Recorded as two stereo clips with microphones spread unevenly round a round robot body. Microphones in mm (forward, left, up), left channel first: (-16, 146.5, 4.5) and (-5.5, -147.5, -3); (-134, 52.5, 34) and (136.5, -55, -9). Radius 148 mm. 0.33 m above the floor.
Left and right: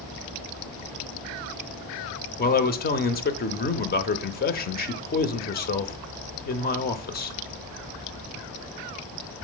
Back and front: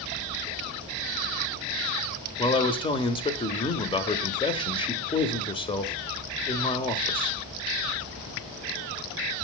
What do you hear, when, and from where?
2.4 s a man speaking: 85° left, 0.9 m